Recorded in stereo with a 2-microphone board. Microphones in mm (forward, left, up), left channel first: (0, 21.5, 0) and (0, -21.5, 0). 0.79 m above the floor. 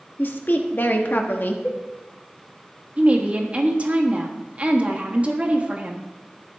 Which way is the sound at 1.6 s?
40° left (ahead or behind).